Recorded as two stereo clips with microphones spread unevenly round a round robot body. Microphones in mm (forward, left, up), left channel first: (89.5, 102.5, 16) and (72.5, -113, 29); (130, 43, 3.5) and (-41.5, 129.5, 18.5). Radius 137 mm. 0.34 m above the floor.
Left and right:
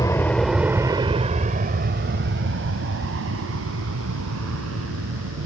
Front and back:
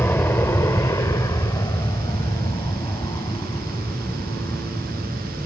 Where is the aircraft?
35° left; by 5.5 s 105° right.